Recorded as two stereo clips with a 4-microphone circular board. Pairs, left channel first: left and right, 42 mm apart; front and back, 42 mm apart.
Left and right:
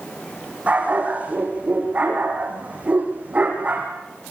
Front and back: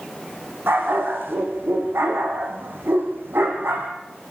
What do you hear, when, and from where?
0.7 s a dog barking: 150° right, 7 m; by 3.9 s 145° right, 5.5 m